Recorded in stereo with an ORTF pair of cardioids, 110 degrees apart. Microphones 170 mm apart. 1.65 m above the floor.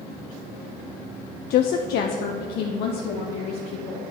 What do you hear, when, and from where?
1.5 s a woman speaking: 70° left, 0.5 m; by 4.0 s 80° left, 1.9 m